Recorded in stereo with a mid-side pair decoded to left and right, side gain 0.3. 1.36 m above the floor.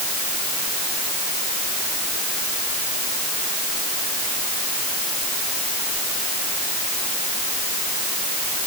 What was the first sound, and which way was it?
Only background noise.